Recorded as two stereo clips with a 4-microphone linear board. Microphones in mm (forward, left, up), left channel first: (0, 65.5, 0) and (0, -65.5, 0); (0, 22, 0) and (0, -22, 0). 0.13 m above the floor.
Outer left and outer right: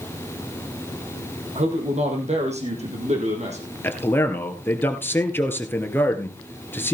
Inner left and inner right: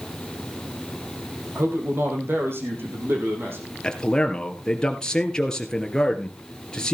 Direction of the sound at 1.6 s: 55° right (ahead or behind).